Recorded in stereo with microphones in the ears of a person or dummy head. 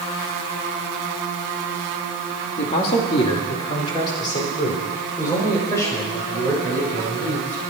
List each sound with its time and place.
2.6 s a man speaking: 40° left (ahead or behind), 2.5 m; by 7.6 s 10° left (ahead or behind), 8.5 m